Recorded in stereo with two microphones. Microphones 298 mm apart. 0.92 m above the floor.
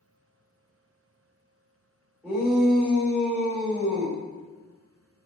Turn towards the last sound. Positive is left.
turn(degrees=-5)  # may be behind; listen again after turning